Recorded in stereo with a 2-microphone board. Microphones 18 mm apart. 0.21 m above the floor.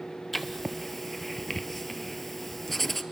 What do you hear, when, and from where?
0.3 s writing: 10° left (ahead or behind), 0.9 m